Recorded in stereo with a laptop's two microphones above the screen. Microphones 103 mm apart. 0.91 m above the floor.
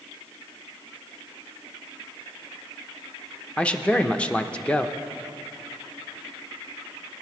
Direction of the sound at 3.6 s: 10° left (ahead or behind).